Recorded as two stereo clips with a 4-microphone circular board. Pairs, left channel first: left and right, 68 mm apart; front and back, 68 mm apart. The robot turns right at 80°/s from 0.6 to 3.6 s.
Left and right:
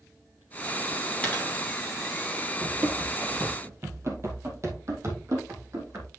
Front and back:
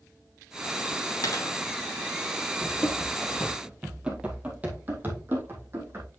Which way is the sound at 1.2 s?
20° left.